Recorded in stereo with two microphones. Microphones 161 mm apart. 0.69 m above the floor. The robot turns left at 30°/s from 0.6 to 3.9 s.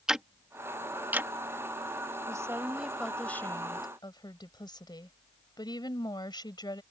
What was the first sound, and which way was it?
Ticking, 5° right (ahead or behind).